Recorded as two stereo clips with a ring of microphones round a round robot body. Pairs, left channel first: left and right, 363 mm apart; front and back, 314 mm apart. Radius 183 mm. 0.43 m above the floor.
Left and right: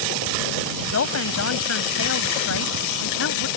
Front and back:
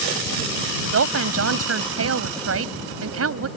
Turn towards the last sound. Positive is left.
turn(degrees=140)